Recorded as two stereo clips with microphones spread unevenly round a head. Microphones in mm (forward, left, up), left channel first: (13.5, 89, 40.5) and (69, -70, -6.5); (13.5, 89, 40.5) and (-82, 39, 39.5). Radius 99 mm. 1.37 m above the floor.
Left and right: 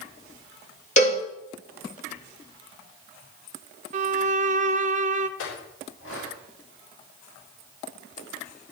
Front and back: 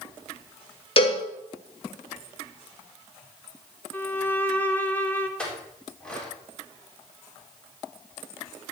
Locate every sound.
1.0 s a cowbell: 65° left, 1.6 m
3.9 s a violin: 45° right, 0.6 m
5.4 s a clink: 110° left, 3.5 m